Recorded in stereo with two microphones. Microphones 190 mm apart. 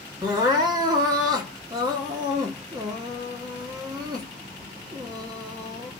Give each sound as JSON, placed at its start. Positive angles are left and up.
{"t": 0.2, "sound": "crying", "side_deg": -20, "distance_m": 1.7}